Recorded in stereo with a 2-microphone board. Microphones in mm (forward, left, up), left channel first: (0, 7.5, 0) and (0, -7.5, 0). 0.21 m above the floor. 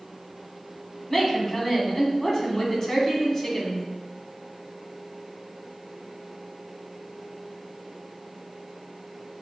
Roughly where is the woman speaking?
Left.